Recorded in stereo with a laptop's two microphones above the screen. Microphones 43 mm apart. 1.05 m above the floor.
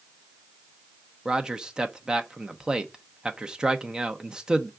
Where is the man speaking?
15° right (ahead or behind), 0.8 m.